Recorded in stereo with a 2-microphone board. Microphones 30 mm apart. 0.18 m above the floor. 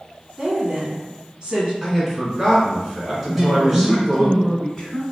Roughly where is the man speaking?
Centre.